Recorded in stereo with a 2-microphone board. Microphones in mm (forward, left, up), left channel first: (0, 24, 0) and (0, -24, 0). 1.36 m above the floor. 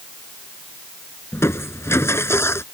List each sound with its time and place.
1.3 s crushing: 65° left (ahead or behind)